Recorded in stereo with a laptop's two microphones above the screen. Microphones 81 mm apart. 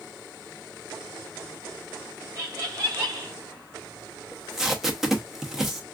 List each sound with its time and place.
2.4 s laughter: 40° right (ahead or behind), 0.6 m
4.3 s tape being pulled: 5° right (ahead or behind), 0.6 m